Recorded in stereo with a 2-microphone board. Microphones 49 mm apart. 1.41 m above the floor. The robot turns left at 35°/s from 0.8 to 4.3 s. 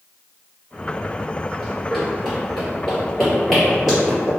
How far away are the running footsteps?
About 1.5 m.